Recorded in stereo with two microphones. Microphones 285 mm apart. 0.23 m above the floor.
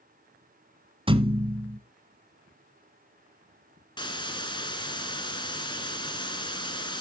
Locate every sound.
1.1 s a thud: 20° right (ahead or behind), 1.1 m
4.0 s a hiss: 15° left (ahead or behind), 2.5 m